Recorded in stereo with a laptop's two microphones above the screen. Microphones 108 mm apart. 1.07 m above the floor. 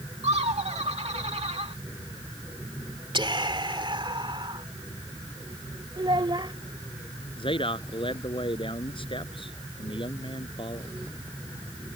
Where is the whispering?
50° right (ahead or behind).